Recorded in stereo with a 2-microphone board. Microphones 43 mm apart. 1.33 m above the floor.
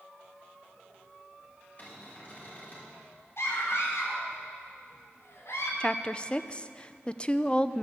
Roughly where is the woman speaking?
Left.